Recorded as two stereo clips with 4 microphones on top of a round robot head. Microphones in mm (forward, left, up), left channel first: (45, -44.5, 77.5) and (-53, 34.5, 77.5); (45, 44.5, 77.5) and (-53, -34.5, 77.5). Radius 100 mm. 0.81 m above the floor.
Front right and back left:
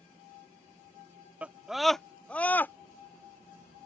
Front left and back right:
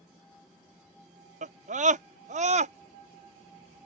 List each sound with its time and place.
1.4 s a scream: 140° right; by 2.7 s 115° right